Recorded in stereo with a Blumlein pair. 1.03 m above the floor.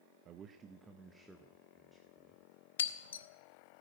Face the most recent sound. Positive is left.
turn(degrees=65)